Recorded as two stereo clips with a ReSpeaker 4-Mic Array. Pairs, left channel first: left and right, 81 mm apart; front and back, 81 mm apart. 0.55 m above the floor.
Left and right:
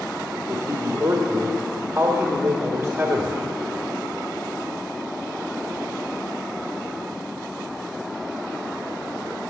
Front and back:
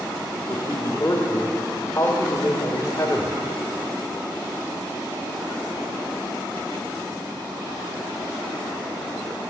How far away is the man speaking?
About 1.5 m.